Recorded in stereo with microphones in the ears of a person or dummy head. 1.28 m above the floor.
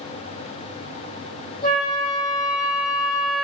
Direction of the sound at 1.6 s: 50° left (ahead or behind).